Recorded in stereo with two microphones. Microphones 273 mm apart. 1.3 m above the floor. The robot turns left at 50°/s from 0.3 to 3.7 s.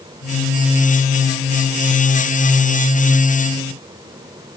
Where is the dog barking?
No dog barking in this recording.